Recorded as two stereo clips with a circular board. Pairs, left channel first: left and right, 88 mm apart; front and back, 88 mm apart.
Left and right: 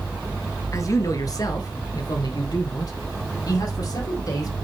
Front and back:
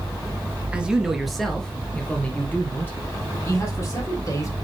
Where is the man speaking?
110° left, 1.3 m; by 4.5 s 55° left, 3 m.